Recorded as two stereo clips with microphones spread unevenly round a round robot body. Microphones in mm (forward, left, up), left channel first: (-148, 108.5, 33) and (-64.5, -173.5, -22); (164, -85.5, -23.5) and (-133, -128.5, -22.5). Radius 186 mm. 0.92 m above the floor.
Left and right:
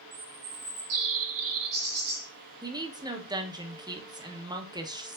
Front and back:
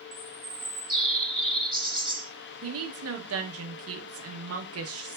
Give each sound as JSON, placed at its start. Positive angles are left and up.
{"t": 0.1, "sound": "a bird", "azimuth_deg": -85, "distance_m": 2.5}
{"t": 2.6, "sound": "a woman speaking", "azimuth_deg": -140, "distance_m": 1.0}